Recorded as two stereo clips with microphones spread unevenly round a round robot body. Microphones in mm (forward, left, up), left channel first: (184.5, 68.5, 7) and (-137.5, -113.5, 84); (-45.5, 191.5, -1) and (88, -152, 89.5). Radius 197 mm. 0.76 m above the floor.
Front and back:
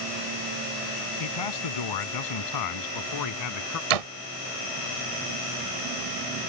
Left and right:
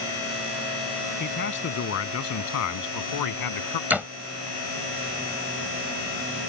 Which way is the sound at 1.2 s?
50° left.